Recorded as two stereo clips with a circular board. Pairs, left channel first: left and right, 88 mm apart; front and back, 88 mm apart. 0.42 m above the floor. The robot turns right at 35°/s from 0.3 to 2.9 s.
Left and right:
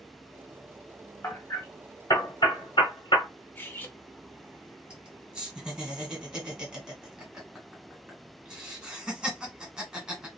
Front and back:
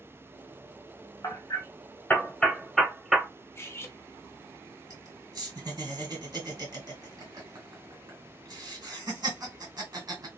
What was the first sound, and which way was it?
Hammering, 35° left.